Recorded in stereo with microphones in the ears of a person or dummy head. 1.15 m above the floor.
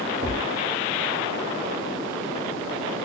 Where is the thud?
45° left (ahead or behind), 1.4 m.